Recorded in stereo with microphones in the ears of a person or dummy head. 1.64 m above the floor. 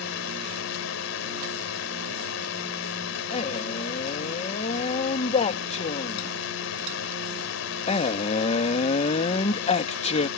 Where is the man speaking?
35° left (ahead or behind).